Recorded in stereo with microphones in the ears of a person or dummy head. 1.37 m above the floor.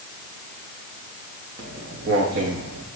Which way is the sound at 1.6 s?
30° right (ahead or behind).